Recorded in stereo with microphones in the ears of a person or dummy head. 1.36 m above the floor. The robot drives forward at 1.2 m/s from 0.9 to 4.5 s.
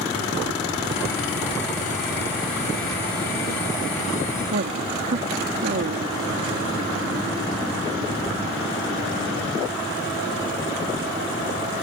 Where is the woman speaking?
45° right (ahead or behind).